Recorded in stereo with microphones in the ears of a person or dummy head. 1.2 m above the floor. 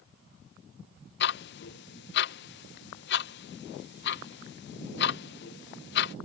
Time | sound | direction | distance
1.2 | ticking | 55° left (ahead or behind) | ?